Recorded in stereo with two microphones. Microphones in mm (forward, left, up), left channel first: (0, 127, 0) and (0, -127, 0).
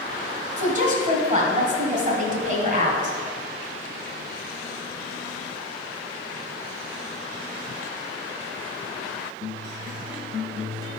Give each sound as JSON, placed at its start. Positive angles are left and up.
{"t": 0.6, "sound": "a woman speaking", "side_deg": -30, "distance_m": 1.6}